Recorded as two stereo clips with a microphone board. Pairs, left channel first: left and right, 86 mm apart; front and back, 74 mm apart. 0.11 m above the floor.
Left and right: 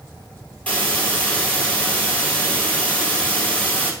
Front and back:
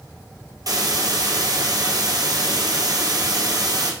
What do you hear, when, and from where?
0.7 s a hiss: 160° left, 1.7 m